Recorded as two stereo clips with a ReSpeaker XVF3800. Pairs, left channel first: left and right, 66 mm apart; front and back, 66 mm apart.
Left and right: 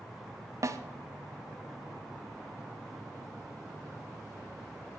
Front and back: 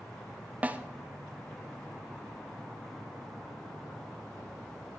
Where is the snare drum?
115° right, 0.7 m.